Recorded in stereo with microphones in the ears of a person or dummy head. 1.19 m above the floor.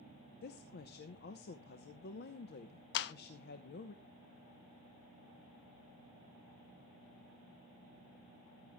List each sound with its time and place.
0.4 s a woman speaking: 60° left (ahead or behind), 0.8 m
2.9 s a clap: 60° left (ahead or behind), 0.8 m